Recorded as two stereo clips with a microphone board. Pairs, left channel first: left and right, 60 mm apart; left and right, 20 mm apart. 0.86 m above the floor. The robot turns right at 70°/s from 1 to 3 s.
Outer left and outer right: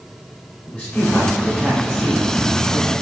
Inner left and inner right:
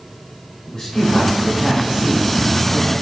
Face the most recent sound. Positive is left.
turn(degrees=-70)